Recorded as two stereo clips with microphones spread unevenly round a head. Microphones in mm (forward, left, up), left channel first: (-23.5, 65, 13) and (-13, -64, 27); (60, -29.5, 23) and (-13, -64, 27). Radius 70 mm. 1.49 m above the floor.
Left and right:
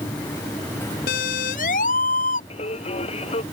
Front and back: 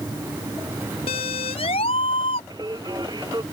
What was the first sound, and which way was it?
A siren, 65° left.